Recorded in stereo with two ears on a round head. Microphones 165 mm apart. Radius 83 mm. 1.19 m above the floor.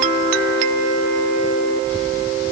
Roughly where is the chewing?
No chewing in this recording.